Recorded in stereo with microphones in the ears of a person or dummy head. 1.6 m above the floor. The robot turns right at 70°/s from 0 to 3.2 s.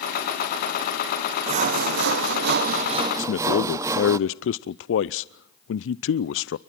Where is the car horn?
I don't hear a car horn.